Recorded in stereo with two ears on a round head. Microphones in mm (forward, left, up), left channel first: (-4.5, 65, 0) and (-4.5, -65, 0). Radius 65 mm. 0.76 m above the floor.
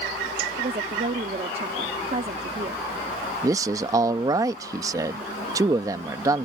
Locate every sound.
0.6 s a woman speaking: 40° right (ahead or behind)
3.4 s a man speaking: 25° right (ahead or behind)